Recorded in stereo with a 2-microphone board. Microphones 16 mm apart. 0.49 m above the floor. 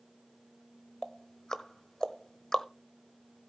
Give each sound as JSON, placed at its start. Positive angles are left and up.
{"t": 1.0, "sound": "ticking", "side_deg": 40, "distance_m": 0.9}